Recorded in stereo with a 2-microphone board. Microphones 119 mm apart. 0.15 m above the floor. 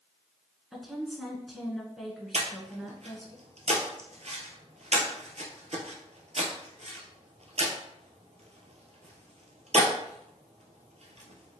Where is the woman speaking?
Centre (ahead or behind), 1.3 m.